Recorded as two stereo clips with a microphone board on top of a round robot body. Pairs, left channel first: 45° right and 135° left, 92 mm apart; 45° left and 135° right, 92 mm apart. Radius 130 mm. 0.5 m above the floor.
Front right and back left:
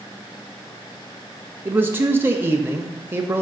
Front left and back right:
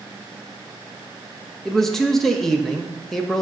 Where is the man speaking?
125° left, 0.8 m.